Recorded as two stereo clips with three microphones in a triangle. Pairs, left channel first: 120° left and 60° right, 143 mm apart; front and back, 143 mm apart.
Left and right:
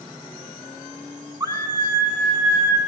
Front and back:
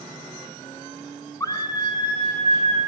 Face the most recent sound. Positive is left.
turn(degrees=15)